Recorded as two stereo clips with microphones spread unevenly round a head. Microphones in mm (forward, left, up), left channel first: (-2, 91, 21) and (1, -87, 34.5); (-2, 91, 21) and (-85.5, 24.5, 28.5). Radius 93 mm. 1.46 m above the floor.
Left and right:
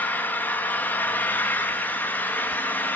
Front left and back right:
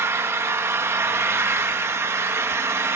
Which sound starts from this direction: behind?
An engine running, at 0.0 s.